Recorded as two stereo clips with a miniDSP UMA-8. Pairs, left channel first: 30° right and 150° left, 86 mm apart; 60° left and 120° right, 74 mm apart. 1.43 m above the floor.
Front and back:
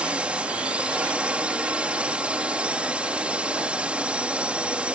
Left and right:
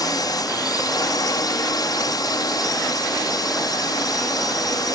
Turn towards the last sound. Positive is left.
turn(degrees=75)